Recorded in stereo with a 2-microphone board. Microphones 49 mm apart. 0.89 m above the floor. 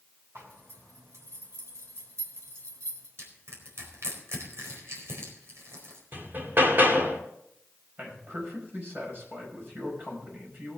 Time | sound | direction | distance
0.3 | a zipper | 65° right (ahead or behind) | 3 m
3.2 | crushing | 70° right (ahead or behind) | 4.5 m
6.1 | hammering | 45° right (ahead or behind) | 2 m
8.0 | a man speaking | 45° right (ahead or behind) | 5.5 m